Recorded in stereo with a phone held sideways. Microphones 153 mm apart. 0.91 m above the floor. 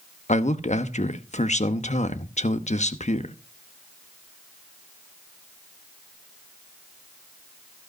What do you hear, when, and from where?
0.3 s a man speaking: 50° left (ahead or behind), 0.9 m